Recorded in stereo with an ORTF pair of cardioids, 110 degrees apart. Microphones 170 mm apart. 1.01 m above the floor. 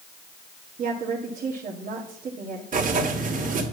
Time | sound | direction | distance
0.8 | a woman speaking | 45° right | 1.6 m
2.7 | writing | 45° right | 2 m